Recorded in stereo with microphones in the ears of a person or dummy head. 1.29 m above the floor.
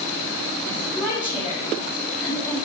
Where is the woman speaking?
10° right (ahead or behind), 4.5 m.